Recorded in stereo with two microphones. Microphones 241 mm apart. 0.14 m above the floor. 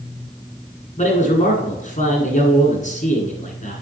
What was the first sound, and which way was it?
A man speaking, 30° left (ahead or behind).